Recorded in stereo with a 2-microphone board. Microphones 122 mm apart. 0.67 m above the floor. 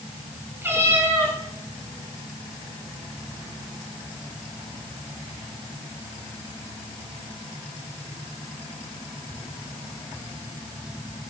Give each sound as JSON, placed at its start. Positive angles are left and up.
{"t": 0.6, "sound": "a cat meowing", "side_deg": -20, "distance_m": 4.0}